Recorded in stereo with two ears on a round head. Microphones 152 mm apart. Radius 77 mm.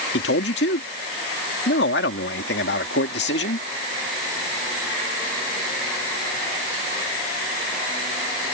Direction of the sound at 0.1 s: 70° left (ahead or behind).